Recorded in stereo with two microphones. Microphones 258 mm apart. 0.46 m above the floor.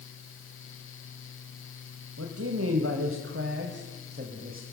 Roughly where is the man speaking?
Right.